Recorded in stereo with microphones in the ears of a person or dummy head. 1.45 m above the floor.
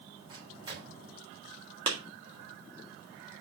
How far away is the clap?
About 1.9 m.